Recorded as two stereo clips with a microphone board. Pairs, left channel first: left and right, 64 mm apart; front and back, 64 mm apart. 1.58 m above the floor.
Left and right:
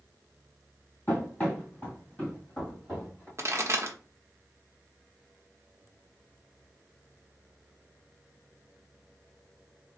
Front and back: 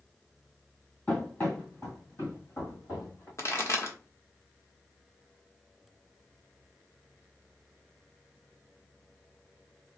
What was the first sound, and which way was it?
Running footsteps, 45° left.